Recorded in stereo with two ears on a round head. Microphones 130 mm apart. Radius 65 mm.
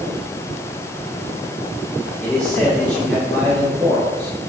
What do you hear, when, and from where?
2.2 s a man speaking: 10° left (ahead or behind), 5.5 m